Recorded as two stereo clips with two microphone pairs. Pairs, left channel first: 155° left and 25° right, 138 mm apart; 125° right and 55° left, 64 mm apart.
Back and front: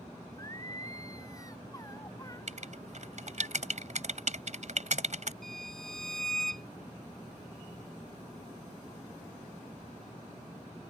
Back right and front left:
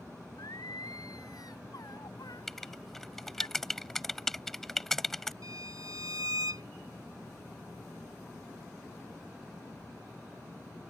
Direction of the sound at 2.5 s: 40° right.